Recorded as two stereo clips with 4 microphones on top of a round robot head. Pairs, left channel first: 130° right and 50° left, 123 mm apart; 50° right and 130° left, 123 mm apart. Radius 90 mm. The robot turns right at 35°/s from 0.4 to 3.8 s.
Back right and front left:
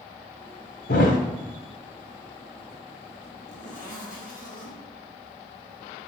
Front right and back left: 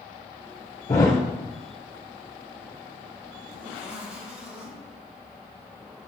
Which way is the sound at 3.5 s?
160° right.